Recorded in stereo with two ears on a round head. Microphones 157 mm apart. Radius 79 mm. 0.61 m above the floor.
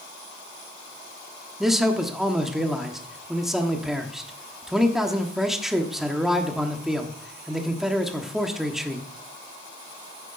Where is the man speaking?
Centre (ahead or behind), 1.2 m.